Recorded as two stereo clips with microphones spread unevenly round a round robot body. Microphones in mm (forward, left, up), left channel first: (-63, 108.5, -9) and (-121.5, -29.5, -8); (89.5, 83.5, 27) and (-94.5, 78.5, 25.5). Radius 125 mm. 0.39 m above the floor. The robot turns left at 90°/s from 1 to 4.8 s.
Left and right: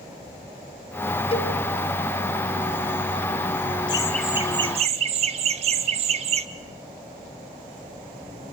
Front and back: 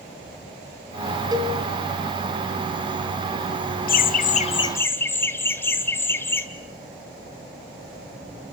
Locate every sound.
1.3 s a cowbell: 115° left, 1.9 m; by 1.6 s 95° left, 1.9 m
3.9 s laughter: 10° left, 1.1 m; by 6.5 s 75° right, 1.1 m